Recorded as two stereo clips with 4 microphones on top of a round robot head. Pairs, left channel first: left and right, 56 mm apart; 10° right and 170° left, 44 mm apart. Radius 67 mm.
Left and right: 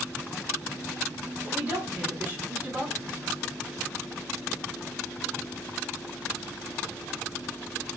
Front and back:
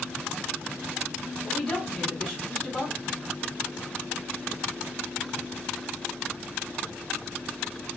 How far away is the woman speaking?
About 1.4 m.